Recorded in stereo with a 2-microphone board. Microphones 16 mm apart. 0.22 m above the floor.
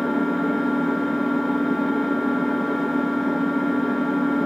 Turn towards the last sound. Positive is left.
turn(degrees=-5)  # may be behind; listen again after turning